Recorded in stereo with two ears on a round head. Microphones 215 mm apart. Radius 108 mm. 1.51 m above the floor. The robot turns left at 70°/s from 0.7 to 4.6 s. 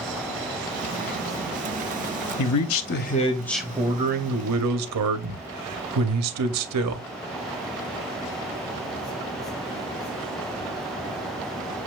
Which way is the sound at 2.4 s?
85° left.